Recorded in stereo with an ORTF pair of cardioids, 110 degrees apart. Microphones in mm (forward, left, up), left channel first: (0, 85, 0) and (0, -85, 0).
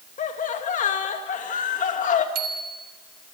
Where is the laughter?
50° left, 2 m.